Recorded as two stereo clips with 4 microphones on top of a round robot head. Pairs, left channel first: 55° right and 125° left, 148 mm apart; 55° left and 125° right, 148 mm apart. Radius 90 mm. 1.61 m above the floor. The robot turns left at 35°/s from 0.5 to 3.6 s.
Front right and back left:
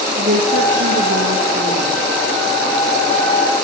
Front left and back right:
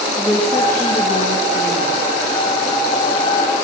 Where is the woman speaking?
135° left, 2.5 m; by 1.9 s 85° left, 2.5 m.